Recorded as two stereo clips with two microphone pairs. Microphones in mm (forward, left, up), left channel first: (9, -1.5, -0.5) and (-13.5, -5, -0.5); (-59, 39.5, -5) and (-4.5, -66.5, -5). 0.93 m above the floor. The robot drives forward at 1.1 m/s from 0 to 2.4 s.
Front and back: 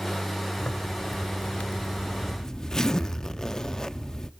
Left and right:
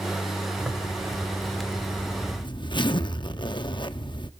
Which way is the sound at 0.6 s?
15° left.